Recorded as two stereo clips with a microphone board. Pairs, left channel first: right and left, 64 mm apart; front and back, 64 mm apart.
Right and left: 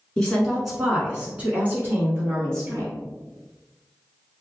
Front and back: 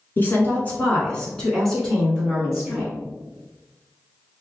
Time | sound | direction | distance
0.2 | a woman speaking | 20° right | 1.5 m